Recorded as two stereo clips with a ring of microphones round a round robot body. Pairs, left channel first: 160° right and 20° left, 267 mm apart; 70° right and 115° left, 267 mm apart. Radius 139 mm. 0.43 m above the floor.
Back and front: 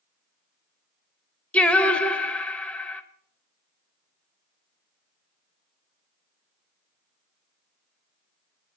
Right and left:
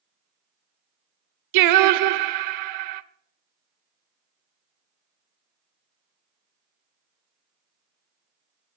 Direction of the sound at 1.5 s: 115° left.